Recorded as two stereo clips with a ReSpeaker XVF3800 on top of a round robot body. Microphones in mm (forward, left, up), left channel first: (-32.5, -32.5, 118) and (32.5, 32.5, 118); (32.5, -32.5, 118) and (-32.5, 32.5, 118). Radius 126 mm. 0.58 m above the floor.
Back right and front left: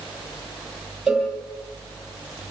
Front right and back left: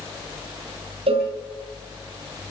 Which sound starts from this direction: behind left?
A cowbell, at 1.1 s.